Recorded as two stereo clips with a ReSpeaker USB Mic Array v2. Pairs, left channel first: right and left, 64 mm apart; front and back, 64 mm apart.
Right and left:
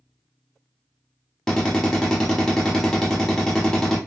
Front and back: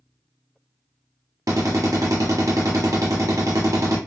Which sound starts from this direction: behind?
A drill, at 1.5 s.